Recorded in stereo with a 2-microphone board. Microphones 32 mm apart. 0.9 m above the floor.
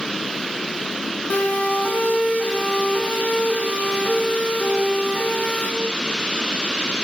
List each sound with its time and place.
1.3 s a siren: 55° left (ahead or behind), 9 m; by 5.7 s 70° left (ahead or behind), 10.5 m